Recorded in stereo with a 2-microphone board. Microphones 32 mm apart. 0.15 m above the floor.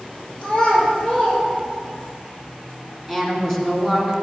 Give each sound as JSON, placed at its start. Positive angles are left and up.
{"t": 0.4, "sound": "a child speaking", "side_deg": 35, "distance_m": 3.0}
{"t": 3.1, "sound": "a woman speaking", "side_deg": 5, "distance_m": 1.6}